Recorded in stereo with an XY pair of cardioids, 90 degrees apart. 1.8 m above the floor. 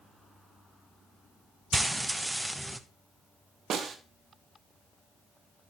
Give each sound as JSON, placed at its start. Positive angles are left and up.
{"t": 1.7, "sound": "frying", "azimuth_deg": -10, "distance_m": 1.1}
{"t": 3.7, "sound": "a snare drum", "azimuth_deg": -65, "distance_m": 1.9}